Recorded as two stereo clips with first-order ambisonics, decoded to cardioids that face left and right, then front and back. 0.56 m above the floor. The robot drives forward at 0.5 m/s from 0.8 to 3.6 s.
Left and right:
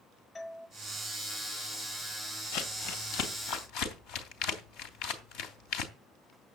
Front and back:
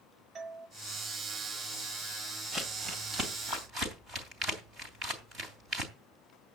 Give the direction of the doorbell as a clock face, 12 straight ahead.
7 o'clock.